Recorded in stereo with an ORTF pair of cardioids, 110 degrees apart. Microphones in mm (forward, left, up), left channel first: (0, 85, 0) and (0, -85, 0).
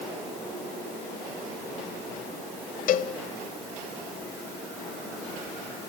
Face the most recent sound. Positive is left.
turn(degrees=55)